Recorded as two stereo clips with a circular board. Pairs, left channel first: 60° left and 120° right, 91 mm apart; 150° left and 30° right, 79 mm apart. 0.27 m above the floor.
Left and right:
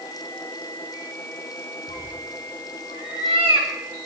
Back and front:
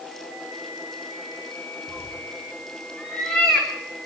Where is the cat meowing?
135° right, 3.5 m; by 3.7 s 120° right, 5 m.